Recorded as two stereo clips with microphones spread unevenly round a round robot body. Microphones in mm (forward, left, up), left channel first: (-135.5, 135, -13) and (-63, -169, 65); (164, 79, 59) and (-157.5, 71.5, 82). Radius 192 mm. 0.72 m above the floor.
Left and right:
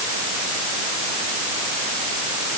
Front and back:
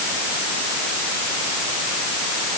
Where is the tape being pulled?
I don't hear tape being pulled.